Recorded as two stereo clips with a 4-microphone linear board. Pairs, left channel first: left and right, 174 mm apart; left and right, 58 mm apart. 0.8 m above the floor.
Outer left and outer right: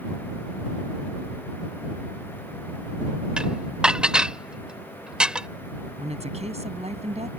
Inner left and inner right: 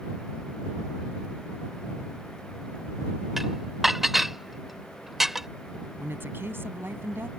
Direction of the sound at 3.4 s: 5° right (ahead or behind).